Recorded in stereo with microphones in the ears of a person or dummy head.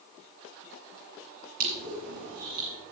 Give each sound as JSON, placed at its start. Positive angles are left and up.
{"t": 1.6, "sound": "crushing", "side_deg": -50, "distance_m": 2.5}